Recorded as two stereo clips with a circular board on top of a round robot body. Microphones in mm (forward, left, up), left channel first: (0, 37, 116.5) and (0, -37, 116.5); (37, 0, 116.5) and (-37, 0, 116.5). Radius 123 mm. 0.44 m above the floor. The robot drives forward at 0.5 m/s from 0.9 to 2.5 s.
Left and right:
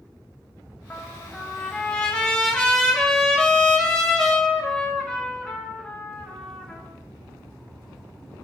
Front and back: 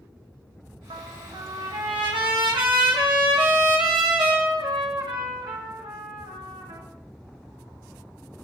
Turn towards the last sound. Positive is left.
turn(degrees=175)